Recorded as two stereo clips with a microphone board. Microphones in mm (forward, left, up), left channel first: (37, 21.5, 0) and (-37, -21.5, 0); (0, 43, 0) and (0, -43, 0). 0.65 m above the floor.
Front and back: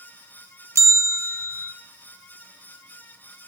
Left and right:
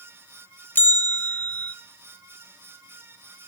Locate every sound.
0.8 s a bell: 155° left, 1.0 m